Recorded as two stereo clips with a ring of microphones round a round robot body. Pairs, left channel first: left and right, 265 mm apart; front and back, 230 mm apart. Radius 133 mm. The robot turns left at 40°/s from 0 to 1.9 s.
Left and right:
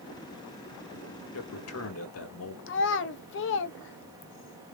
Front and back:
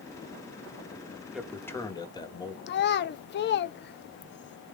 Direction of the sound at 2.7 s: 45° left.